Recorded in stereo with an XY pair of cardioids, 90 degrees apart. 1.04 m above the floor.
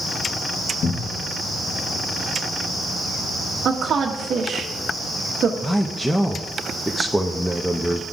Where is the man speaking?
Straight ahead, 0.9 m.